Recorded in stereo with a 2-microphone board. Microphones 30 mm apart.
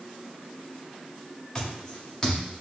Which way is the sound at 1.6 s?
15° left (ahead or behind).